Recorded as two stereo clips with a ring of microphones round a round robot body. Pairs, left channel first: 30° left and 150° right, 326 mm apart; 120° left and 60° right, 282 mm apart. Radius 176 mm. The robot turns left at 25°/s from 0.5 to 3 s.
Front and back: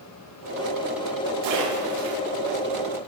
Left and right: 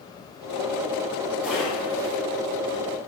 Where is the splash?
145° right, 8 m; by 2.2 s 165° right, 8 m.